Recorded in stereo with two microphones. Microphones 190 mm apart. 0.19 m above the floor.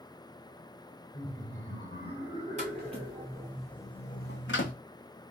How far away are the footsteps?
About 1.4 m.